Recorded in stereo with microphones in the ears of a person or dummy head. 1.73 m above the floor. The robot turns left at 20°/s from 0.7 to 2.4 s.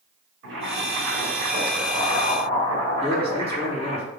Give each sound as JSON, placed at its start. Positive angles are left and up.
{"t": 0.4, "sound": "boiling", "azimuth_deg": -105, "distance_m": 3.5}
{"t": 3.0, "sound": "a man speaking", "side_deg": -25, "distance_m": 2.5}